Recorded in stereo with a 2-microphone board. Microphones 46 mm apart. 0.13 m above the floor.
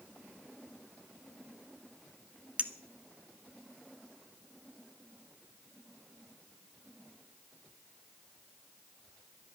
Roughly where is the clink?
Right.